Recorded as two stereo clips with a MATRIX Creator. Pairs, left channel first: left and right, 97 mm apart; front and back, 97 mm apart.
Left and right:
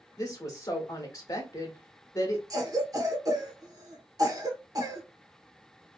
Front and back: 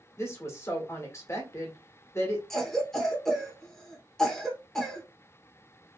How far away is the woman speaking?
About 1.0 m.